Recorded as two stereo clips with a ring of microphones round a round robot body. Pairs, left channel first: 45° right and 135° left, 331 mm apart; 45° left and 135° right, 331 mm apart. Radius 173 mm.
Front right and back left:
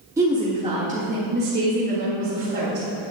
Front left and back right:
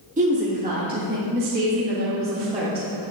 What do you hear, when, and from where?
0.2 s a woman speaking: 160° right, 1.4 m; by 2.9 s 170° left, 2 m